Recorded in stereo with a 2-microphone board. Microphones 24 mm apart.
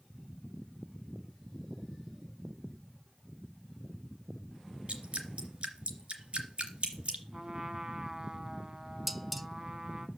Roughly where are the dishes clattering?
Centre.